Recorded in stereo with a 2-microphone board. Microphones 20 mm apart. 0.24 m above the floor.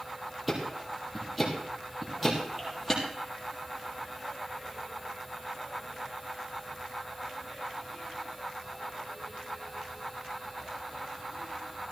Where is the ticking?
5° right (ahead or behind), 4.5 m.